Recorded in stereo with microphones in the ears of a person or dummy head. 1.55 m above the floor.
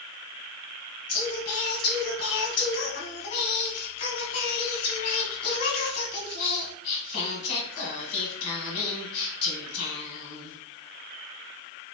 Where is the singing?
40° left (ahead or behind), 1.5 m.